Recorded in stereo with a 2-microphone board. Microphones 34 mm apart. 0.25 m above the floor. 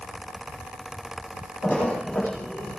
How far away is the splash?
About 9.5 m.